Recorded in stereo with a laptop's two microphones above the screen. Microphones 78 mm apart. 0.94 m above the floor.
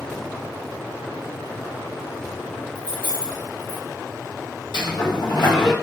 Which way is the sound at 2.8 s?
15° left (ahead or behind).